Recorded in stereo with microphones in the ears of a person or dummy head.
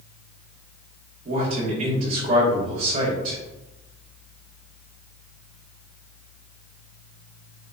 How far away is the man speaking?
About 1.7 m.